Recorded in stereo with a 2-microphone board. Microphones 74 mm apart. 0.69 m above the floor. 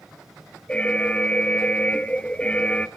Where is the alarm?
15° left (ahead or behind), 0.7 m.